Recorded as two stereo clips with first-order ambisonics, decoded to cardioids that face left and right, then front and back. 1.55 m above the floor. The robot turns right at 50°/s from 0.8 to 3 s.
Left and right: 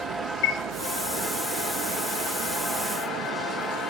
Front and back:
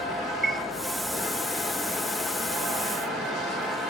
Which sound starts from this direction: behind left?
A chime, at 0.4 s.